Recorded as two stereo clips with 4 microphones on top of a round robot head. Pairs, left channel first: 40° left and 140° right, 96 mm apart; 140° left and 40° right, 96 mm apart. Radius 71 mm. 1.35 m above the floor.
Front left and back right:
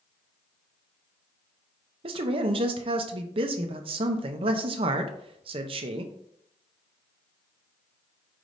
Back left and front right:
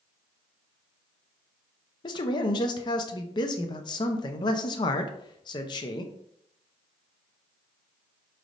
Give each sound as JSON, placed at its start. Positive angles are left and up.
{"t": 2.0, "sound": "a man speaking", "azimuth_deg": -175, "distance_m": 0.5}